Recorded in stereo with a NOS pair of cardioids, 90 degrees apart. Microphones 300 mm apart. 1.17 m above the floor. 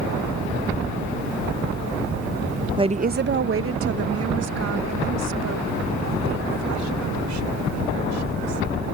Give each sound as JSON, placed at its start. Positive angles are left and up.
{"t": 2.8, "sound": "a woman speaking", "azimuth_deg": -15}